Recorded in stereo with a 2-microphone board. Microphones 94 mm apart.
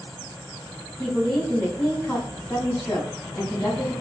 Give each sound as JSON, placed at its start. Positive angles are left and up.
{"t": 1.0, "sound": "a woman speaking", "side_deg": 5, "distance_m": 1.6}